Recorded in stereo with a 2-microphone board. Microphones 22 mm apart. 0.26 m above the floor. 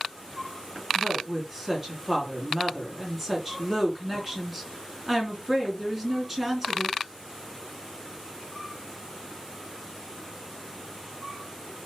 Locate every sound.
0.9 s a woman speaking: 10° right (ahead or behind), 3.5 m